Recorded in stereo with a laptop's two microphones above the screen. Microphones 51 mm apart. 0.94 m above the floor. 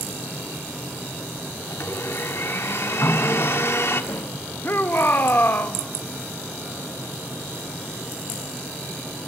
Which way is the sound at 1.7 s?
55° left (ahead or behind).